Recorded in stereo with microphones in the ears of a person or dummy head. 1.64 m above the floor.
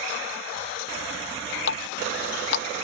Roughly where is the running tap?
Left.